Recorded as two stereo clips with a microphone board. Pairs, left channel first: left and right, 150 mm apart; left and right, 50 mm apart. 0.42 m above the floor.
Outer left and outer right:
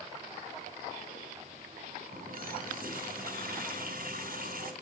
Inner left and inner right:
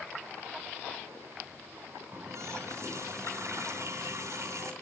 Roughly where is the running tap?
Right.